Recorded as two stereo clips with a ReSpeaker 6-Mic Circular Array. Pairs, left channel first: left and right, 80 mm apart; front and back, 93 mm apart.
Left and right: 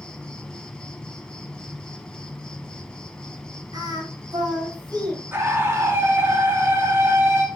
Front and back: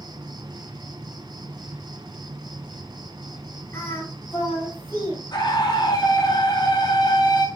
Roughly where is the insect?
Behind.